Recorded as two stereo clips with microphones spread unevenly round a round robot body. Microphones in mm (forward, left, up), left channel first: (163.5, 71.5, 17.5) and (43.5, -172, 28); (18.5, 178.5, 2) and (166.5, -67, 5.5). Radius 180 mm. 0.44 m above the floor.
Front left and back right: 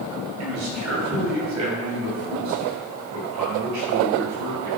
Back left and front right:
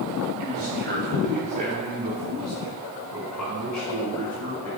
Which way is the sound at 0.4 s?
105° right.